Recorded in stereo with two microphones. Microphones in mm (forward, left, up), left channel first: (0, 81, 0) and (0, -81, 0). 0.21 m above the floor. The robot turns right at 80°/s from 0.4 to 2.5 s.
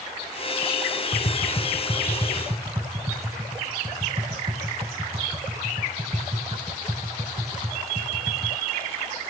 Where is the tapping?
45° left (ahead or behind), 0.9 m; by 8.6 s 35° right (ahead or behind), 0.9 m.